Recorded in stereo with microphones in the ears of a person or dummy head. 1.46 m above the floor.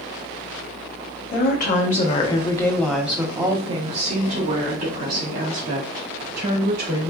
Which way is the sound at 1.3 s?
55° left (ahead or behind).